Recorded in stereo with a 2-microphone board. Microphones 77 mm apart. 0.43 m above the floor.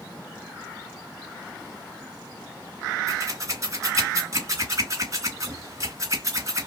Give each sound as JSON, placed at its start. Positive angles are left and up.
{"t": 3.1, "sound": "scissors", "side_deg": -45, "distance_m": 2.5}